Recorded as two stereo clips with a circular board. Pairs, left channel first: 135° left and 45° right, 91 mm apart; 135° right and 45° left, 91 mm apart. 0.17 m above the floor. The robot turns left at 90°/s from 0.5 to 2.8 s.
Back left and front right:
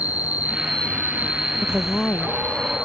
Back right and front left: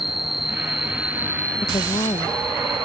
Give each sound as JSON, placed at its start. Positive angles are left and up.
{"t": 0.0, "sound": "an insect", "azimuth_deg": -115}
{"t": 1.6, "sound": "a woman speaking", "azimuth_deg": -105}